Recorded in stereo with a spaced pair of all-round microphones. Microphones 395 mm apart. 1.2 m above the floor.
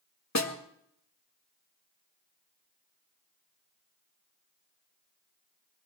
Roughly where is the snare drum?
Left.